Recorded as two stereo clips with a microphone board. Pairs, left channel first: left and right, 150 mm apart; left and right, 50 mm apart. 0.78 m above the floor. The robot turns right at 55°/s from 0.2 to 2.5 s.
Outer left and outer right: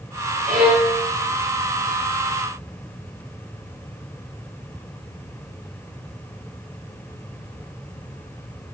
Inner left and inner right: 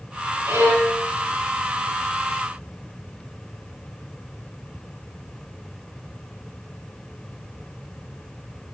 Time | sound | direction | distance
0.5 | a violin | 70° right (ahead or behind) | 4.5 m